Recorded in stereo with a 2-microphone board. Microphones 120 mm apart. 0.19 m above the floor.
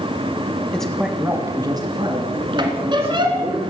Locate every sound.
0.7 s a man speaking: 10° left (ahead or behind), 1.4 m; by 3.6 s 60° right (ahead or behind), 4 m
2.6 s a squeak: 40° right (ahead or behind), 1.6 m